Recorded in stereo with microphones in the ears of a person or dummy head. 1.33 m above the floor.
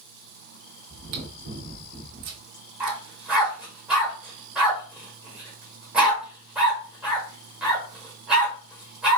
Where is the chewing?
60° right (ahead or behind), 1.2 m.